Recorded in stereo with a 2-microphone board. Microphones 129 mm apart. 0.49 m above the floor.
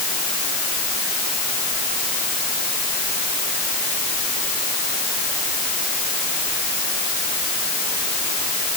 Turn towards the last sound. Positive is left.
No sound to turn to.